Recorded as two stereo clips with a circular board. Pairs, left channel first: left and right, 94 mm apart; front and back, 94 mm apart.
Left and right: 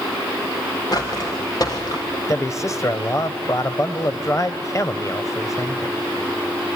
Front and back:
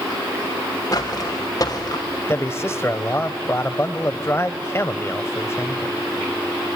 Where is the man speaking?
50° left, 1.3 m.